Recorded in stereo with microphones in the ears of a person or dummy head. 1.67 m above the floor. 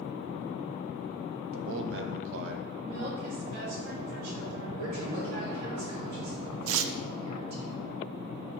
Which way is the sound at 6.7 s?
85° right.